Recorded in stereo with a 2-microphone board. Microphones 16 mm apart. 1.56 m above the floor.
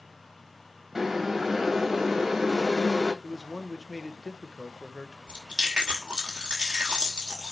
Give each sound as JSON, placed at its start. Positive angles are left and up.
{"t": 0.9, "sound": "boiling", "side_deg": -20, "distance_m": 3.0}
{"t": 3.2, "sound": "a man speaking", "side_deg": -35, "distance_m": 1.1}
{"t": 5.3, "sound": "chewing", "side_deg": -65, "distance_m": 2.5}